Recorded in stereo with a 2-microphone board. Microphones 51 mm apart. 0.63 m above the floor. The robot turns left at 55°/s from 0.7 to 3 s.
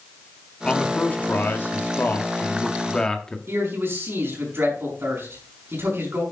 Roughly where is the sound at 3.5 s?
Right.